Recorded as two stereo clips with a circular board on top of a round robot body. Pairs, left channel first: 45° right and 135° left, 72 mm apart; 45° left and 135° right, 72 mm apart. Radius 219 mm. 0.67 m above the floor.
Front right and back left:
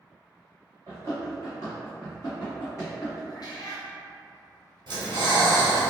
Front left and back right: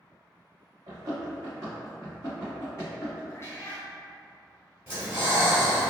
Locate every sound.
0.9 s running footsteps: 175° right, 1.1 m; by 3.2 s 5° left, 1.0 m
3.3 s a cat meowing: 10° right, 0.6 m
4.9 s breathing: 160° left, 1.1 m